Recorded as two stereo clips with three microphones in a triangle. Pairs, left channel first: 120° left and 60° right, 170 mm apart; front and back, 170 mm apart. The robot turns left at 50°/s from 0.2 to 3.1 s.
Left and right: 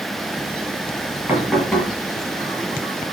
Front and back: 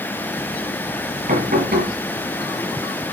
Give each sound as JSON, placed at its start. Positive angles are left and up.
{"t": 1.3, "sound": "knocking", "azimuth_deg": -140, "distance_m": 6.0}